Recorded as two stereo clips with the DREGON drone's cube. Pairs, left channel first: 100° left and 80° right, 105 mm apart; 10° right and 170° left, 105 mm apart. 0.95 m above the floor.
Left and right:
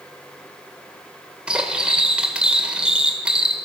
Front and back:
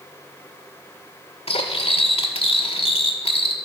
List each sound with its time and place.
1.5 s cutlery clinking: straight ahead, 1.7 m